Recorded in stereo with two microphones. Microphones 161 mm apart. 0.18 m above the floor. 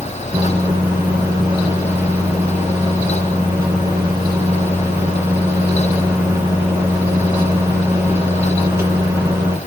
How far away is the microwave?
About 2 m.